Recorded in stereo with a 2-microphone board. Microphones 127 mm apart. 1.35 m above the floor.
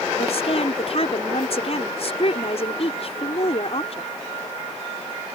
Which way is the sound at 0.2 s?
55° left (ahead or behind).